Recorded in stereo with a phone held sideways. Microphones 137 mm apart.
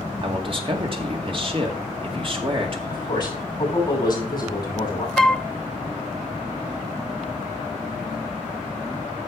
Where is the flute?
Centre (ahead or behind), 0.5 m.